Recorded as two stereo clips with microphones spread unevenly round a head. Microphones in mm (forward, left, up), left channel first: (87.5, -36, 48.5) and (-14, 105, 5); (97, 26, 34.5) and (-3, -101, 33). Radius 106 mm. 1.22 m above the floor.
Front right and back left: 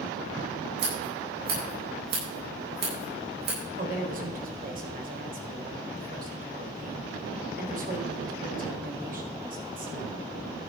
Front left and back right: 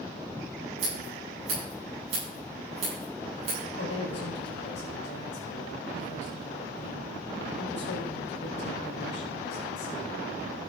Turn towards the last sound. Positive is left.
turn(degrees=85)